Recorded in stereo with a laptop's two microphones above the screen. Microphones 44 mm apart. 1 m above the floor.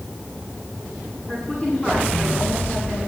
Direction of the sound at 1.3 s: 25° left (ahead or behind).